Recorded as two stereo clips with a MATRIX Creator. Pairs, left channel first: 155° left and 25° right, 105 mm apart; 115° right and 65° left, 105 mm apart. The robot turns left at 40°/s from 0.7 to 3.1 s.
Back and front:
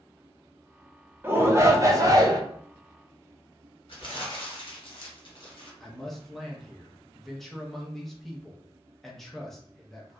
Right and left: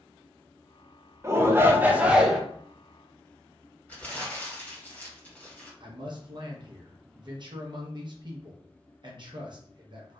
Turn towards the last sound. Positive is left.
turn(degrees=70)